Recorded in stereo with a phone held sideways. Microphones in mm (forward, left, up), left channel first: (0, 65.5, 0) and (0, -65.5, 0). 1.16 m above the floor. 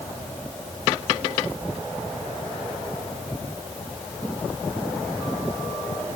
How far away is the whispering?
No whispering in this recording.